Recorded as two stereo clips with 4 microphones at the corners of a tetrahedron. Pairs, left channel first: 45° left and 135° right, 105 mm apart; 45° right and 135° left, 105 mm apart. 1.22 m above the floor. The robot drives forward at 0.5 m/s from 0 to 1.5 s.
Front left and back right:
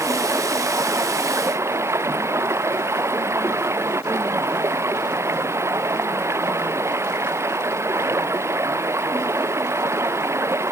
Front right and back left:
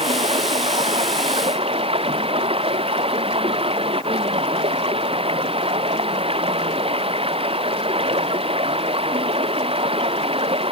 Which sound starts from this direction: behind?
Running water, at 0.0 s.